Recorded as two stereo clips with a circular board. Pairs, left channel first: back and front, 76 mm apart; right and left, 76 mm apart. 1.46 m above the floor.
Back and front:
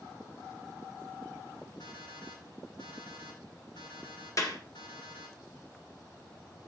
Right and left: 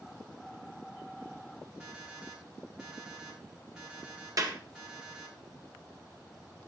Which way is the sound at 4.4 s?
130° left.